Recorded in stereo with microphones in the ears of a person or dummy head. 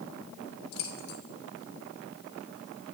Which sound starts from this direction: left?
Keys jangling, at 0.7 s.